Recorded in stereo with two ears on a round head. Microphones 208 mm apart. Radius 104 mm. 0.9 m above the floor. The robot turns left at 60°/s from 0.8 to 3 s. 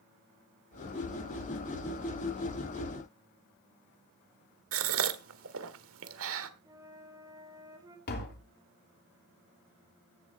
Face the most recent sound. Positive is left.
turn(degrees=50)  # may be behind; listen again after turning